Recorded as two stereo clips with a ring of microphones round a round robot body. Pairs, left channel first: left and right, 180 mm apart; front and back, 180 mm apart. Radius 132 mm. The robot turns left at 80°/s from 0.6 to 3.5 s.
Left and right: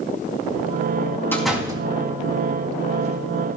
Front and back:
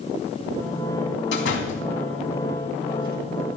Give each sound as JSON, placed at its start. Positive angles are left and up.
{"t": 1.3, "sound": "a door slam", "azimuth_deg": 10, "distance_m": 3.0}